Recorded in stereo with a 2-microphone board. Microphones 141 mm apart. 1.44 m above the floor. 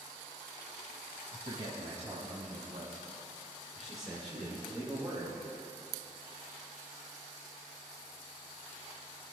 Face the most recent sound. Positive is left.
turn(degrees=5)  # may be behind; listen again after turning